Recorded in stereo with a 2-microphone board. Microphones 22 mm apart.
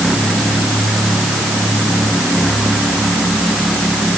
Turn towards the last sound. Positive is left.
No sound to turn to.